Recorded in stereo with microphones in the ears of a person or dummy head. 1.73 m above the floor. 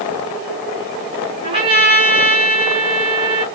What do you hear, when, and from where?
1.4 s a trumpet: 30° right (ahead or behind), 2.5 m